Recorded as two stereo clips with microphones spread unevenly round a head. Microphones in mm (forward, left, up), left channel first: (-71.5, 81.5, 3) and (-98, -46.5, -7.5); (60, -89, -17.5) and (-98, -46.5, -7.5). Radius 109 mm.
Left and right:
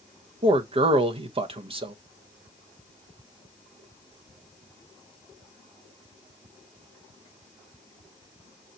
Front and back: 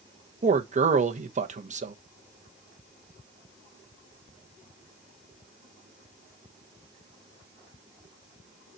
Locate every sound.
0.4 s a man speaking: 150° right, 1.1 m